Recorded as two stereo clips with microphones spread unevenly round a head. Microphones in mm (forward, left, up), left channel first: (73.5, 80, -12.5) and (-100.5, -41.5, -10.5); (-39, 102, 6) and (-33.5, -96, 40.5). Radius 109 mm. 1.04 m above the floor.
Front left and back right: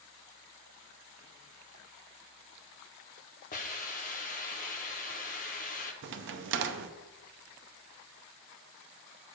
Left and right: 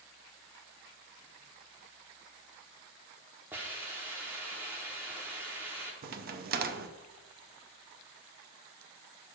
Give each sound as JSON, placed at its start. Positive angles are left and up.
{"t": 3.5, "sound": "a hiss", "azimuth_deg": -15, "distance_m": 0.8}
{"t": 6.0, "sound": "a crack", "azimuth_deg": -120, "distance_m": 0.5}